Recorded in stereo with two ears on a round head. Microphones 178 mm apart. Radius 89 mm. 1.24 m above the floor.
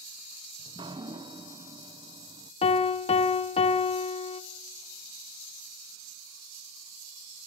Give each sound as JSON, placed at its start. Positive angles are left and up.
{"t": 0.6, "sound": "dripping", "side_deg": -25, "distance_m": 0.8}
{"t": 2.6, "sound": "a piano", "side_deg": 30, "distance_m": 0.9}